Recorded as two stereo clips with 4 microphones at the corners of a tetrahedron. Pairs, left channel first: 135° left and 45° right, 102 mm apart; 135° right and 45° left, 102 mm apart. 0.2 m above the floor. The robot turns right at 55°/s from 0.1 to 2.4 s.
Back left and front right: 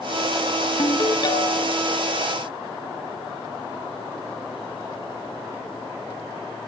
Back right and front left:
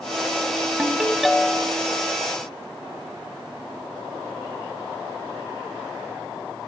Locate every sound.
0.8 s a ringtone: 110° left, 0.6 m; by 1.8 s 165° left, 0.6 m